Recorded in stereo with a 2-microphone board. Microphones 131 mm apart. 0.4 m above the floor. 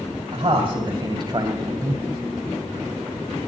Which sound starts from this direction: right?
A man speaking, at 0.3 s.